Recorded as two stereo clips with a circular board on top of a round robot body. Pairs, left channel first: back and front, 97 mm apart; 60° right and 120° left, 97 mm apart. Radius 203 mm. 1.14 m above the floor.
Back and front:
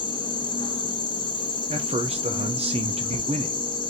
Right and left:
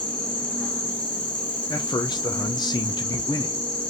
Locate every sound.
0.0 s an insect: 140° right, 0.7 m
1.7 s a man speaking: 15° right, 0.6 m